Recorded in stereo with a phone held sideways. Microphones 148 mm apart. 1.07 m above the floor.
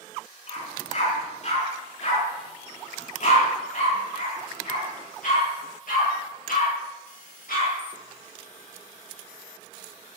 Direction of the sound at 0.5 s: 50° left (ahead or behind).